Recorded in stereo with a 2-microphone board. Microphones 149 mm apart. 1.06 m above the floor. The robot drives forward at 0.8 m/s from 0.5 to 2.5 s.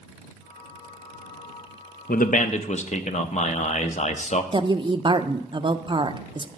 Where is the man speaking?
75° left (ahead or behind), 0.6 m; by 4.4 s 50° left (ahead or behind), 0.7 m.